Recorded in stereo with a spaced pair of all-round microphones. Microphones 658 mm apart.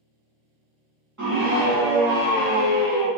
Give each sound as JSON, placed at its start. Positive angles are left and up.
{"t": 1.2, "sound": "a scream", "side_deg": -30, "distance_m": 0.6}